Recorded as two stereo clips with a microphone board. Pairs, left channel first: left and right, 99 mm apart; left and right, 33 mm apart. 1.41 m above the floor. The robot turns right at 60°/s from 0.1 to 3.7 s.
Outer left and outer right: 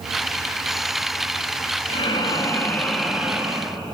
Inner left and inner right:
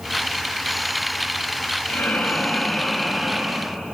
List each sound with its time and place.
1.9 s breathing: 110° left, 2.5 m; by 3.8 s 140° right, 2.5 m